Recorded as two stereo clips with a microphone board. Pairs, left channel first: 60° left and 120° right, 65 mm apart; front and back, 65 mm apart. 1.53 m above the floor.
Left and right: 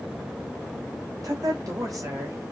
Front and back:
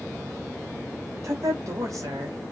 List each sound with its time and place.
1.2 s a woman speaking: 145° right, 2.5 m; by 2.4 s 150° right, 3 m